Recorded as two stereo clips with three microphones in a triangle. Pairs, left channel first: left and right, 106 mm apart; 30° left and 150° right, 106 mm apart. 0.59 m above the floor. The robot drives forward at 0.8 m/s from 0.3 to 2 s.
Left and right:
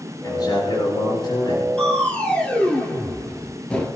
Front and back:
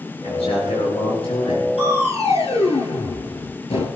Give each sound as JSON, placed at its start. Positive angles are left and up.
{"t": 0.2, "sound": "a man speaking", "azimuth_deg": 40, "distance_m": 8.0}
{"t": 1.8, "sound": "crushing", "azimuth_deg": 10, "distance_m": 3.5}